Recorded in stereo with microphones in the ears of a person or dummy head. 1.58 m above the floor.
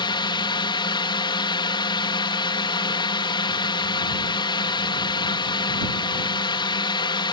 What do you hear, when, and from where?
0.0 s a drone: 30° left (ahead or behind)